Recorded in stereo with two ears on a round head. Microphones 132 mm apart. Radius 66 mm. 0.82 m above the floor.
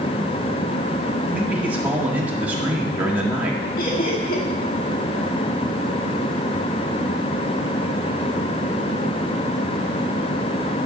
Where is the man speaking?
10° right (ahead or behind), 1.8 m.